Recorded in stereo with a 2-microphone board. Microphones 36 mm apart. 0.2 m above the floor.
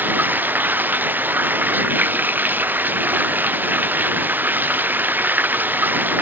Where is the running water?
60° right (ahead or behind).